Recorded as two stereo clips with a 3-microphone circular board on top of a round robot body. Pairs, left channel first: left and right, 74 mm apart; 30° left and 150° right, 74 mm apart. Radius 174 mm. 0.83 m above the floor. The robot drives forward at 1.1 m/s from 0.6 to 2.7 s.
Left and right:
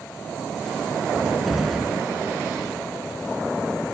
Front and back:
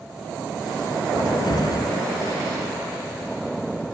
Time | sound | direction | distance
1.1 | a cupboard door | straight ahead | ?